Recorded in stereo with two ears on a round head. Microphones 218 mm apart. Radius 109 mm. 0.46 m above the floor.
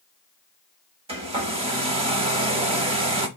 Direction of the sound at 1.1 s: 25° right (ahead or behind).